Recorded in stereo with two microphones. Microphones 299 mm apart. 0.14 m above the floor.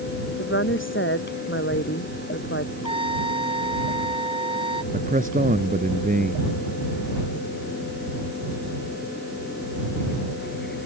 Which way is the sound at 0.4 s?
40° left (ahead or behind).